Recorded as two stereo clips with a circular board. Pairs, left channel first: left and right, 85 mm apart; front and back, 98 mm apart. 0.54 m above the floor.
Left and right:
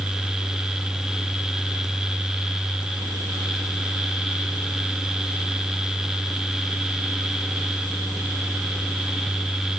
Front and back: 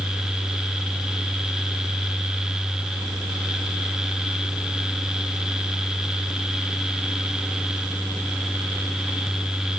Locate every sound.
Only background noise.